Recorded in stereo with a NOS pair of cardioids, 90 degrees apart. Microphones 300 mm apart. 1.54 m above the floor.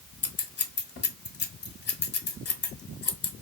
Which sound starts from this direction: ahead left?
Scissors, at 0.2 s.